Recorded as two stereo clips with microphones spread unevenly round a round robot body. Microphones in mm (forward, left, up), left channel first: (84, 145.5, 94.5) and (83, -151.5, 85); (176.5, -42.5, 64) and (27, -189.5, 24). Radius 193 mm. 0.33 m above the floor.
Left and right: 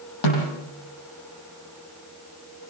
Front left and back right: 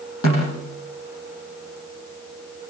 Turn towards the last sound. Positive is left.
turn(degrees=95)